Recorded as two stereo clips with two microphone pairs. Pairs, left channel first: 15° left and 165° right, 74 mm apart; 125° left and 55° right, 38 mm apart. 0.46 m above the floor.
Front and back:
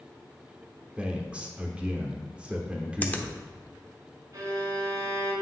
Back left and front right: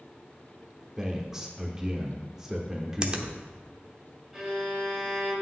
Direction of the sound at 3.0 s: 30° right.